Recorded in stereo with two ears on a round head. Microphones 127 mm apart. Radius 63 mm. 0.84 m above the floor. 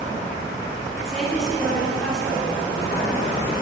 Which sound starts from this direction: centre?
A woman speaking, at 1.1 s.